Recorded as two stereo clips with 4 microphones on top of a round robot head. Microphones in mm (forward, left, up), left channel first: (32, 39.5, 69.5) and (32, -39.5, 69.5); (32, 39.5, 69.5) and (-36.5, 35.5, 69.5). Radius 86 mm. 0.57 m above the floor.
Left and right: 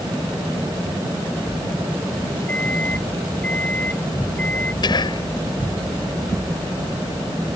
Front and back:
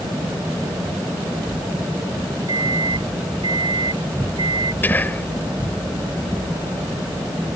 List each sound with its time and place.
2.5 s a microwave: 165° left
4.8 s whispering: 65° left